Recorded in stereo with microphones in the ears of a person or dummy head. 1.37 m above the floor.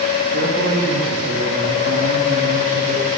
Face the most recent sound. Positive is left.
turn(degrees=-50)  # may be behind; listen again after turning